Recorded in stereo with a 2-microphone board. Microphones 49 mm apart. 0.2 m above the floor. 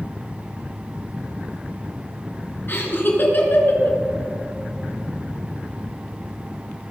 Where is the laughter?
50° left (ahead or behind), 3 m.